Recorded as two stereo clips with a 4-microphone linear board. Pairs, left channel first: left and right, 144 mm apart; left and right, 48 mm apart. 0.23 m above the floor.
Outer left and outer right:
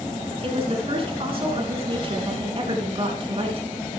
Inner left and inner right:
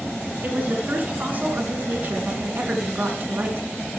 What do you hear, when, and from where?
0.4 s a woman speaking: 40° right (ahead or behind), 3 m